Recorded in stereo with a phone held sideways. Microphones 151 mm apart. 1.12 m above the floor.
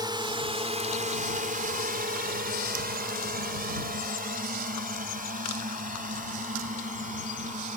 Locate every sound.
0.0 s a drone: 30° right (ahead or behind); by 7.8 s 55° right (ahead or behind)